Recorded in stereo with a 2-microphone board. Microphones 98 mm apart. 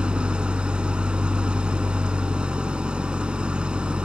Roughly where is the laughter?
No laughter in this recording.